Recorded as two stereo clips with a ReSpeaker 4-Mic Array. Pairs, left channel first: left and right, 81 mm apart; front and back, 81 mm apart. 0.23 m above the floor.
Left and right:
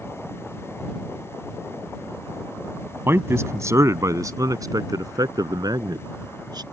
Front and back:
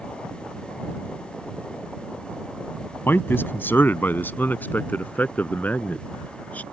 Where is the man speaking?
50° right; by 6.6 s 70° right.